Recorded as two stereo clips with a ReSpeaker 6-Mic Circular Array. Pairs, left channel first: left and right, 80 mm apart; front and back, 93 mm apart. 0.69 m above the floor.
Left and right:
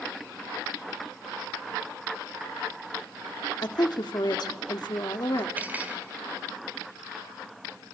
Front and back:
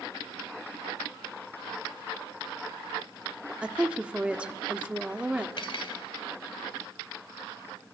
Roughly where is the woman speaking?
Left.